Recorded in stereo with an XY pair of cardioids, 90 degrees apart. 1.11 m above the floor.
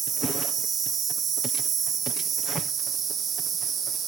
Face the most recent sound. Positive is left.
turn(degrees=-65)